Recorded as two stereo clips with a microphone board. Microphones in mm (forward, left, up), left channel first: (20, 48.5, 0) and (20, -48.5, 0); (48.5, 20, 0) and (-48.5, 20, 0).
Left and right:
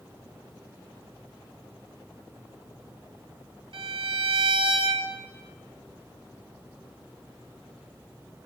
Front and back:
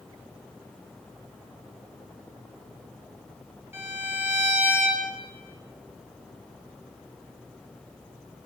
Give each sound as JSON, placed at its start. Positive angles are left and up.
{"t": 3.7, "sound": "a violin", "azimuth_deg": -115, "distance_m": 4.0}